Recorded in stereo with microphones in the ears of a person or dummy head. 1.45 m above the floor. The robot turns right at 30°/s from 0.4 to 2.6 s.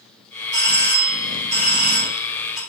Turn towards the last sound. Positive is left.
turn(degrees=0)